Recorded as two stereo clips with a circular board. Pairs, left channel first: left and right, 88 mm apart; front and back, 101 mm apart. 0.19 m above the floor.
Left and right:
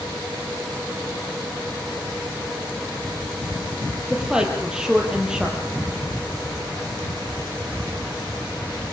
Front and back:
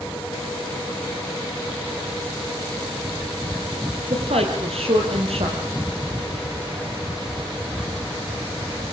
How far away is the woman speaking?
About 5.5 m.